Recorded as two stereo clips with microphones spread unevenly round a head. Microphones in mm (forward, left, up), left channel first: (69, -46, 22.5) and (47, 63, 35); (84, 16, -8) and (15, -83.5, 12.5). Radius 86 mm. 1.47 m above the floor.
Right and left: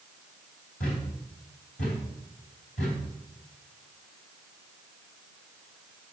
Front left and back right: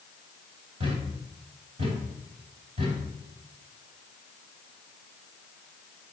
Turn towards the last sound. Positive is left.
turn(degrees=-100)